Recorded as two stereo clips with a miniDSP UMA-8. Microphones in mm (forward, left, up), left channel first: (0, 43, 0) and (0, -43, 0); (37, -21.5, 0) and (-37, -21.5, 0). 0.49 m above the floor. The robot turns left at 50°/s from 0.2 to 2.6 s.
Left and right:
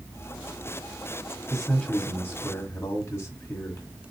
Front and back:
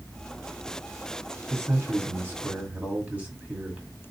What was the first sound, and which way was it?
A man speaking, straight behind.